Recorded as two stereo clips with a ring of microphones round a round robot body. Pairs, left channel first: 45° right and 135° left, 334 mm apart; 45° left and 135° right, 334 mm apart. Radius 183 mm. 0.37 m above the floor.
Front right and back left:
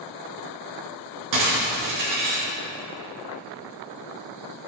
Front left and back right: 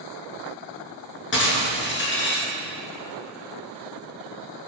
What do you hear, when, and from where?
1.3 s breaking glass: 100° left, 4 m